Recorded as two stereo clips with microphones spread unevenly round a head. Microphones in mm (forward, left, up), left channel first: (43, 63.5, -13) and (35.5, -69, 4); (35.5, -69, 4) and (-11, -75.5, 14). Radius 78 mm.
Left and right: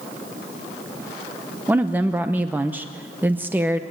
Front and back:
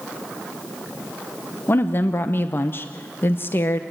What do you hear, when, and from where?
1.7 s a woman speaking: 15° right, 0.8 m